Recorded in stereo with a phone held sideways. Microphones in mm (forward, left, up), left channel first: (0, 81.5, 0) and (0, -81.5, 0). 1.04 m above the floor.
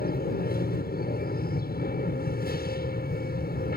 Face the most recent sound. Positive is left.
turn(degrees=65)  # may be behind; listen again after turning